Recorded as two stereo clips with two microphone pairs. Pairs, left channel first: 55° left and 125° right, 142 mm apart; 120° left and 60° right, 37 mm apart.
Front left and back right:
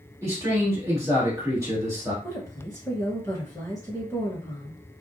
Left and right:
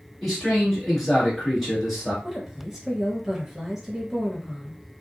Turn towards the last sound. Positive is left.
turn(degrees=10)